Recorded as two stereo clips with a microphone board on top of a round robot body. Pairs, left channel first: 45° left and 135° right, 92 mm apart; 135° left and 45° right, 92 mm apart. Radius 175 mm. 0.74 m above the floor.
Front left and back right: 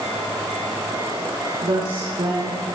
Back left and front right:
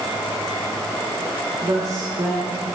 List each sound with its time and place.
1.6 s a woman speaking: 95° right, 9.5 m